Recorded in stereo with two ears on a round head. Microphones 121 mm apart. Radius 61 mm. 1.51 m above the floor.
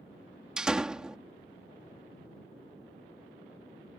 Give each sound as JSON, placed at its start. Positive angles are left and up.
{"t": 0.6, "sound": "a door slam", "side_deg": -5}